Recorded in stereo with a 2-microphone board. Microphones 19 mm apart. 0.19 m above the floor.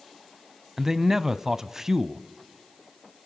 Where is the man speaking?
20° right (ahead or behind), 1.1 m.